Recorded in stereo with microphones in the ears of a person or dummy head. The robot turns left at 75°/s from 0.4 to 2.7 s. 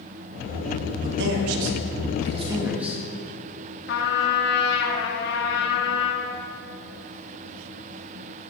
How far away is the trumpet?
About 1.9 m.